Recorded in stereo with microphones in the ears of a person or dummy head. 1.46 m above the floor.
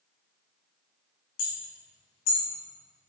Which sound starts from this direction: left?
Hammering, at 1.4 s.